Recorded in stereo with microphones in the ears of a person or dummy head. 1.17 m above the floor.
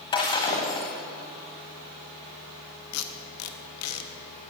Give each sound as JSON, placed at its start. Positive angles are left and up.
{"t": 0.1, "sound": "breaking glass", "side_deg": 20, "distance_m": 1.3}
{"t": 2.9, "sound": "tape being pulled", "side_deg": 85, "distance_m": 1.3}